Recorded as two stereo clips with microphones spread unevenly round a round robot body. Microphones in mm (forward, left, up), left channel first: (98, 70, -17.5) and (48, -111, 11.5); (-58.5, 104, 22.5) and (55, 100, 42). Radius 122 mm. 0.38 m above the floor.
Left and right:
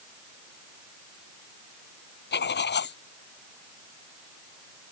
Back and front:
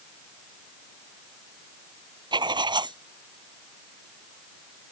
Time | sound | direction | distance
2.3 | writing | 45° left | ?